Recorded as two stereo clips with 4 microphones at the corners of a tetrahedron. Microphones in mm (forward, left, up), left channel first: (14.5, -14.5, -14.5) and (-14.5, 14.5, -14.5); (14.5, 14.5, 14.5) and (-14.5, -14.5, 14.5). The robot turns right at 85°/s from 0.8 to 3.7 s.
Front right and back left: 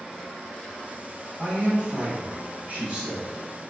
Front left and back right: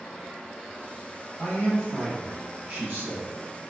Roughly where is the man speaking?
Left.